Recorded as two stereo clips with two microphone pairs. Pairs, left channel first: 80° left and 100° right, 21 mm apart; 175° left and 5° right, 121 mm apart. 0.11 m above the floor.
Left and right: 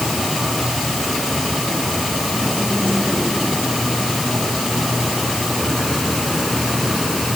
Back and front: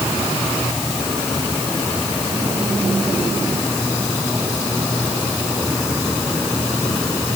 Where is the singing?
I don't hear singing.